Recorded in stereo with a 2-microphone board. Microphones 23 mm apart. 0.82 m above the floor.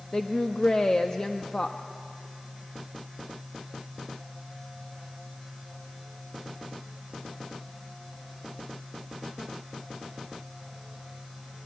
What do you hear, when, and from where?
0.1 s a woman speaking: 35° left (ahead or behind), 0.9 m